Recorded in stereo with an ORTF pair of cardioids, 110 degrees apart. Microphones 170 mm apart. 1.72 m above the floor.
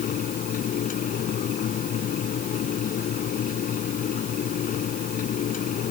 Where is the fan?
55° left.